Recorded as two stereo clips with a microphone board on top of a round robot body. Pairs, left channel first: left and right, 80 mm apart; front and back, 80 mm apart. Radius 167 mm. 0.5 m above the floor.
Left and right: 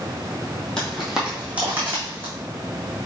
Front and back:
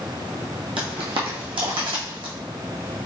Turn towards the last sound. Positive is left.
turn(degrees=-155)